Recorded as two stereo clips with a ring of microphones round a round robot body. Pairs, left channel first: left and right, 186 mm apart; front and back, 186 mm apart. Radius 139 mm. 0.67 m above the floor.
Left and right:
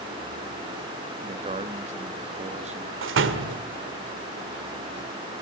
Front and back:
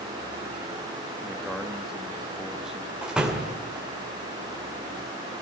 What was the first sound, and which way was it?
A man speaking, 95° right.